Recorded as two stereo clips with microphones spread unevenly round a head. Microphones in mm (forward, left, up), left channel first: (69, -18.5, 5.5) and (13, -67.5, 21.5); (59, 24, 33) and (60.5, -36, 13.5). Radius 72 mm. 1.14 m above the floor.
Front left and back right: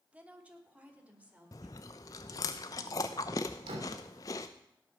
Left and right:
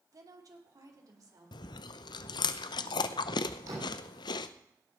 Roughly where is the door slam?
Behind right.